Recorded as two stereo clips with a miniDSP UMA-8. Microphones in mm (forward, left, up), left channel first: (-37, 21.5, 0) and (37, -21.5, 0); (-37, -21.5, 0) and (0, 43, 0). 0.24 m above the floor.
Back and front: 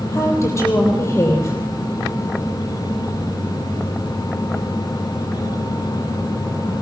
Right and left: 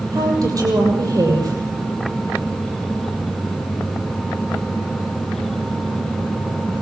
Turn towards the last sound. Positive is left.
turn(degrees=95)